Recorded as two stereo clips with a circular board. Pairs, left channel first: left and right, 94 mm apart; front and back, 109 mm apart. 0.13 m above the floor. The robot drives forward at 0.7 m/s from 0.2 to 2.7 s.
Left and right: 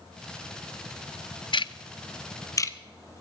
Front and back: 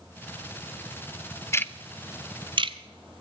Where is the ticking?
65° left, 0.5 m; by 3.2 s 145° left, 0.8 m.